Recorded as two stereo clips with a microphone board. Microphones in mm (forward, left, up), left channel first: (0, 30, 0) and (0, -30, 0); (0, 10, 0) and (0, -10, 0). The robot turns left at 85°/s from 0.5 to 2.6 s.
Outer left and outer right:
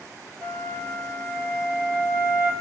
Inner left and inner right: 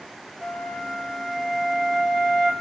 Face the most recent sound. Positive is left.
turn(degrees=105)